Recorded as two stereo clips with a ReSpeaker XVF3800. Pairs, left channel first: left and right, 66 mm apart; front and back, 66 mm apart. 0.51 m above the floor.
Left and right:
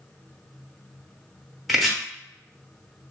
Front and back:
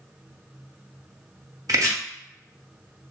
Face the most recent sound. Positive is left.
turn(degrees=180)